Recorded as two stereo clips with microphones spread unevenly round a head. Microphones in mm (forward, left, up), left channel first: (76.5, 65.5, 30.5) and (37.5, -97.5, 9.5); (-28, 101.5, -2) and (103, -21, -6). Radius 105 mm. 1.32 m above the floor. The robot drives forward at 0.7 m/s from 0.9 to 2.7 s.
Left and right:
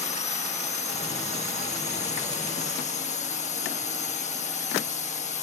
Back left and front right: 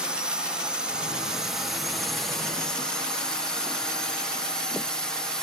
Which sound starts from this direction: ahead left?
A drone, at 0.0 s.